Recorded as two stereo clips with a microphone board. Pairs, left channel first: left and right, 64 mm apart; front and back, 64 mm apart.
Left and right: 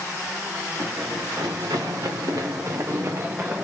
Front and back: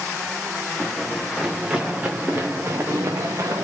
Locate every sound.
0.8 s running footsteps: 85° right, 1.3 m; by 3.6 s 150° right, 1.4 m